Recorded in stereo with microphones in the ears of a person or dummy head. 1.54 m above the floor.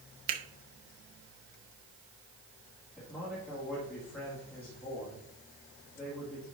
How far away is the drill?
No drill in this recording.